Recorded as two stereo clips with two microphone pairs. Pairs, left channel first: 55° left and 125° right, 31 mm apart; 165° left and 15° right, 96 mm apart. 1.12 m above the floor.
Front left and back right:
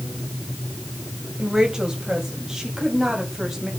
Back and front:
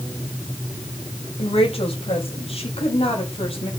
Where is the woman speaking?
165° left, 7.5 m; by 3.7 s 155° left, 8.5 m.